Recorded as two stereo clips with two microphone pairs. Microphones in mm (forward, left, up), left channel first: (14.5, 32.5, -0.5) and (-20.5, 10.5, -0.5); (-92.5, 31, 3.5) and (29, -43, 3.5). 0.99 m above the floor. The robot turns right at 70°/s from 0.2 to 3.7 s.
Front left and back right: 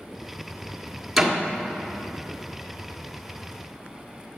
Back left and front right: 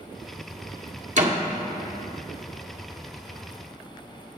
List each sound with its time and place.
1.2 s a door slam: 65° right, 1.7 m; by 1.4 s 50° right, 1.7 m